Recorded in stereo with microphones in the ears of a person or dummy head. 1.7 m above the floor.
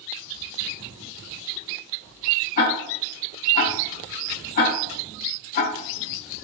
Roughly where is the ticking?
Left.